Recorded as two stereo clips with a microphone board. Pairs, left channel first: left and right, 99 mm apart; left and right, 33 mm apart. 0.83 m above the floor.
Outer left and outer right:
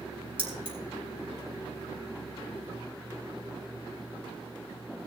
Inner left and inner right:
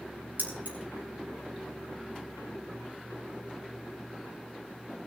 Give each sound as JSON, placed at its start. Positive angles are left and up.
{"t": 0.4, "sound": "keys jangling", "side_deg": -60, "distance_m": 4.5}